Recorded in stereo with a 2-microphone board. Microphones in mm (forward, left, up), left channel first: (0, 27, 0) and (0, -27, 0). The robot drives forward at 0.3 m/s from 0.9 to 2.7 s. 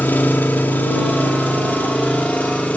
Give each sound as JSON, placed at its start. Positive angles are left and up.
{"t": 0.0, "sound": "an engine running", "side_deg": 35, "distance_m": 2.5}